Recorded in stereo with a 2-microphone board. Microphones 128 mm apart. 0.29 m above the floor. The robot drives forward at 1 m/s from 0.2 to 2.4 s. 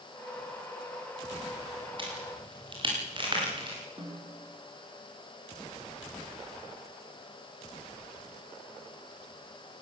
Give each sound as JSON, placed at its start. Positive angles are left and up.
{"t": 2.0, "sound": "a crack", "side_deg": -40, "distance_m": 10.0}
{"t": 4.0, "sound": "a snare drum", "side_deg": -45, "distance_m": 8.0}